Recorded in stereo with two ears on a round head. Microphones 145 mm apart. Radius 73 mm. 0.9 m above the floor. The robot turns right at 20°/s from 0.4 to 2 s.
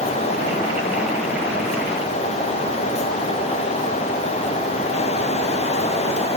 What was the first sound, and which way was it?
Only background noise.